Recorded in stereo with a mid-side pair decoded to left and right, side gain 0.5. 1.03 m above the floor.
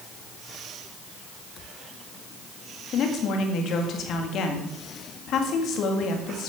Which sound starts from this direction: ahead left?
A woman speaking, at 2.9 s.